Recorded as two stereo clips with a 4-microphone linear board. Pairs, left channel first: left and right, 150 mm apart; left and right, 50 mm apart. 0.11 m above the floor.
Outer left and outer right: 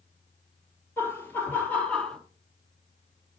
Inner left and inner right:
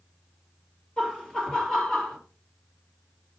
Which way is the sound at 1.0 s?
15° left (ahead or behind).